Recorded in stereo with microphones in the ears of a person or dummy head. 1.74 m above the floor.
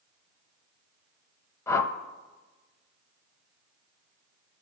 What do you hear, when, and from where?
1.7 s a whoosh: 15° left (ahead or behind), 0.6 m